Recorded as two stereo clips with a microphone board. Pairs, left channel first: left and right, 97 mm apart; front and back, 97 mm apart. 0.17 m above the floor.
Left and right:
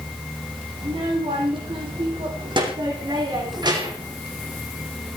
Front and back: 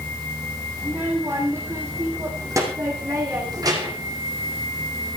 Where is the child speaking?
110° right, 6.5 m; by 4.2 s 135° right, 6.5 m.